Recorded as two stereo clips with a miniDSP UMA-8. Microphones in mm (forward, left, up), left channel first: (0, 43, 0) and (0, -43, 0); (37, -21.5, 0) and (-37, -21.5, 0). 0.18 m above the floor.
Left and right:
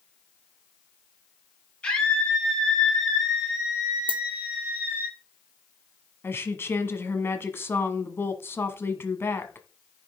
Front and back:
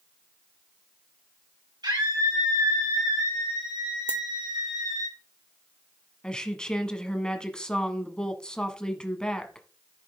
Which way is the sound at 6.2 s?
70° left.